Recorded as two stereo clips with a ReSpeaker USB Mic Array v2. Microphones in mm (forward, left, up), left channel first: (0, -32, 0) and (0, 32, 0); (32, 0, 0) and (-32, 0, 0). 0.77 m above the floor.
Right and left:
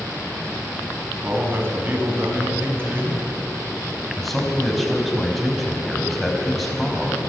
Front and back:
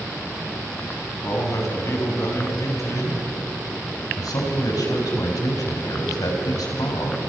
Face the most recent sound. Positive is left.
turn(degrees=0)